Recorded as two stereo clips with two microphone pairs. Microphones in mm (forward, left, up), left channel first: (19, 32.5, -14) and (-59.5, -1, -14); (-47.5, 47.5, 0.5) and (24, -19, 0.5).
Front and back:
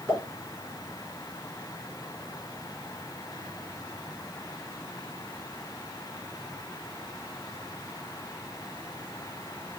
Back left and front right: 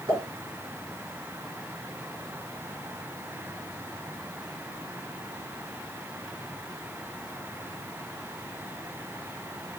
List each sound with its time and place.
0.1 s a pop: 85° right, 2.5 m